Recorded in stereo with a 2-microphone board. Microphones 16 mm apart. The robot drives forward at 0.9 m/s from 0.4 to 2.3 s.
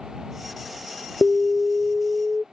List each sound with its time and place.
1.2 s an alarm: 5° left (ahead or behind); by 2.4 s centre (ahead or behind)